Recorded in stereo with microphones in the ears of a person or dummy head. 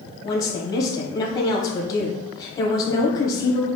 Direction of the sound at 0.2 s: 30° left (ahead or behind).